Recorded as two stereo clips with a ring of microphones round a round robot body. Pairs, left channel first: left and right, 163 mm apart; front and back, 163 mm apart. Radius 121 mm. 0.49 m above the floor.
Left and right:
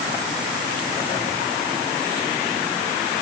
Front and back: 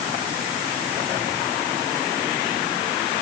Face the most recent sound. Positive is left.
No sound to turn to.